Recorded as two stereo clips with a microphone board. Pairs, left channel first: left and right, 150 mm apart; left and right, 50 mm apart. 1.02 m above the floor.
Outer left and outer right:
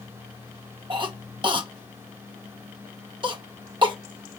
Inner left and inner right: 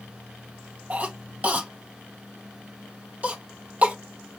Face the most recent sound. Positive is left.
turn(degrees=-30)  # may be behind; listen again after turning